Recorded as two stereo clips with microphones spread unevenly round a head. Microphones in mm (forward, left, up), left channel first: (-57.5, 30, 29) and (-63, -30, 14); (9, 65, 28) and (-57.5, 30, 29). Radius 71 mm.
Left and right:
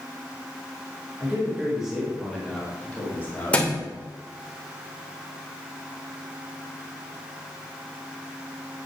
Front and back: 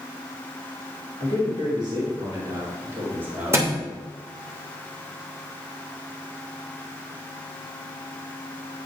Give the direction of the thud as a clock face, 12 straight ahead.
7 o'clock.